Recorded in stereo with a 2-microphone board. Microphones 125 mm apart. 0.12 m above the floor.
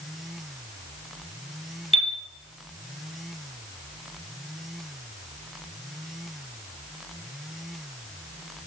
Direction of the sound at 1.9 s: 50° left (ahead or behind).